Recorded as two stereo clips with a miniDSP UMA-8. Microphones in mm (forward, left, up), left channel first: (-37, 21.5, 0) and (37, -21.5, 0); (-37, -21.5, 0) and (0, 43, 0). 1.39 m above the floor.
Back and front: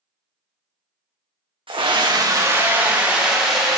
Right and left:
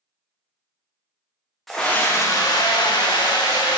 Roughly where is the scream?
Ahead right.